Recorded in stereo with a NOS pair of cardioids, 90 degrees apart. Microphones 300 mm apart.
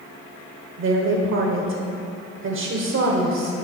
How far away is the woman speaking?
About 1.4 m.